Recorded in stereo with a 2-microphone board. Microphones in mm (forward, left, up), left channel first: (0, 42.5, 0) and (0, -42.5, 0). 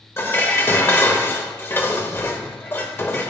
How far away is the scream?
I don't hear a scream.